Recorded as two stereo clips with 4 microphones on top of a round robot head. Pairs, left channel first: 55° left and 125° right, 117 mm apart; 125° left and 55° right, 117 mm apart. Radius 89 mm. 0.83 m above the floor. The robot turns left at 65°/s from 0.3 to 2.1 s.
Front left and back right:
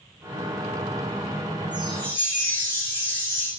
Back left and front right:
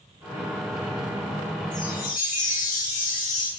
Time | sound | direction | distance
1.7 | a chime | 150° left | 6.5 m